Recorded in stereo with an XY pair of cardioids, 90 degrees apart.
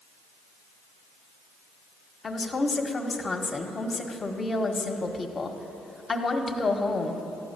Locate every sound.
2.2 s a woman speaking: 40° left, 1.5 m